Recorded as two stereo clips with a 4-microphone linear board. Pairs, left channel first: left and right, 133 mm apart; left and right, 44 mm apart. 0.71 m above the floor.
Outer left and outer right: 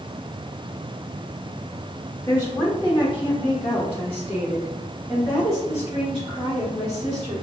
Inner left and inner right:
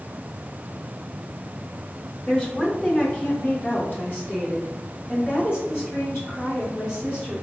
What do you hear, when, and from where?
2.3 s a woman speaking: 25° left (ahead or behind), 1.1 m; by 7.3 s 65° left (ahead or behind), 3.5 m